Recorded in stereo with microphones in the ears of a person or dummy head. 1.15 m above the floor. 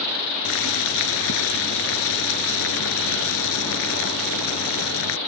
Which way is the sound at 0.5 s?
65° left (ahead or behind).